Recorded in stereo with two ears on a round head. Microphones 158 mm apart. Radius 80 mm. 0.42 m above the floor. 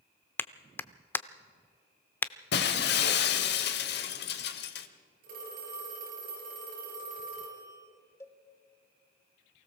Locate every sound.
0.4 s a clap: 10° left (ahead or behind), 0.6 m
2.5 s breaking glass: 60° left (ahead or behind), 1.2 m
5.2 s a phone ringing: 50° right (ahead or behind), 5.5 m
8.2 s a cowbell: 15° left (ahead or behind), 1.1 m